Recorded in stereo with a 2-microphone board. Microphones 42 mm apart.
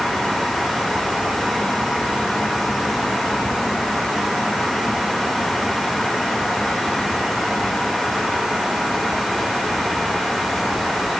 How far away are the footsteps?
No footsteps in this recording.